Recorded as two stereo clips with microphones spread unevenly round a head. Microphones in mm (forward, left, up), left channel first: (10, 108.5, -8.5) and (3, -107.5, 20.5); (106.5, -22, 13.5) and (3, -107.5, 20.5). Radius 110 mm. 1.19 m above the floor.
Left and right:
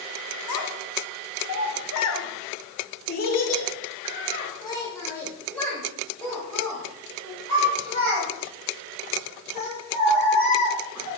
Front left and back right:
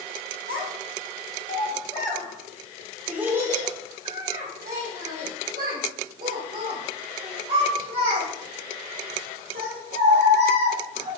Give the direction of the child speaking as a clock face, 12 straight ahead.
9 o'clock.